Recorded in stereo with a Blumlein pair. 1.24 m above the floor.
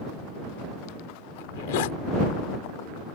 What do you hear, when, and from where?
1.4 s a zipper: 50° left